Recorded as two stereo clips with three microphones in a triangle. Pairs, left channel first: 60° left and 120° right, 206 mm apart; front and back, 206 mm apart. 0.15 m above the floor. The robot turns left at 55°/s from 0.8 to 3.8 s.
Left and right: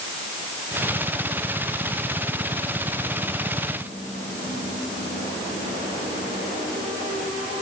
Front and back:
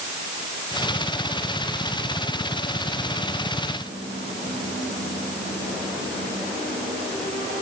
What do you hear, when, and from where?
Only background noise.